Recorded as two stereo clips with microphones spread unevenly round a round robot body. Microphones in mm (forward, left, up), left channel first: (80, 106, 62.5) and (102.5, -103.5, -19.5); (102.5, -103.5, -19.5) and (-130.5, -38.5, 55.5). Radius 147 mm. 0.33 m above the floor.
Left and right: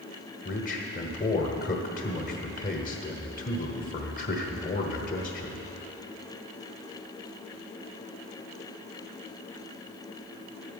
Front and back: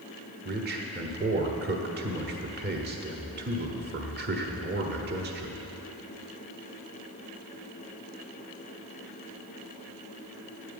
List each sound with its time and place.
0.5 s a man speaking: 145° left, 1.2 m